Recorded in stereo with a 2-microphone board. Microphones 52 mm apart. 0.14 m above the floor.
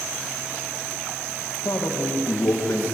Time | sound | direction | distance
1.6 | a man speaking | 70° left (ahead or behind) | 6.5 m